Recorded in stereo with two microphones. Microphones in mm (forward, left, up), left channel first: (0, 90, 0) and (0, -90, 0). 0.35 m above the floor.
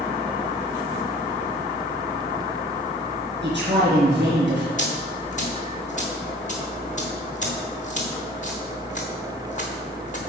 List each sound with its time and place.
3.4 s a man speaking: 75° right (ahead or behind), 4.5 m
4.8 s a dropped coin: 45° left (ahead or behind), 3 m